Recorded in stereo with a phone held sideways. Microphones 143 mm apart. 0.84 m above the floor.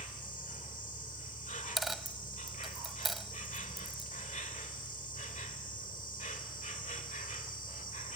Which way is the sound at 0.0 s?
65° left (ahead or behind).